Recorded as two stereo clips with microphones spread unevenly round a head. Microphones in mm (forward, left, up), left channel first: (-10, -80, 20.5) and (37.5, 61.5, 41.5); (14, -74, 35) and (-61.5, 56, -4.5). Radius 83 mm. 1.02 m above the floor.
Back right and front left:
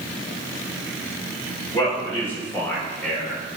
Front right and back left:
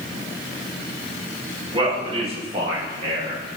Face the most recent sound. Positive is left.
turn(degrees=165)